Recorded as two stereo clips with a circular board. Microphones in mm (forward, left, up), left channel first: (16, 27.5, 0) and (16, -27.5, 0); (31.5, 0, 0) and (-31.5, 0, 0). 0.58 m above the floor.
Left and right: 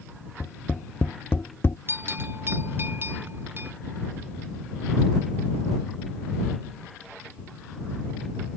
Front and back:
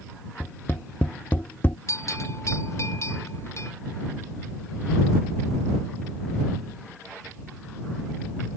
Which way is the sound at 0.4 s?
50° left.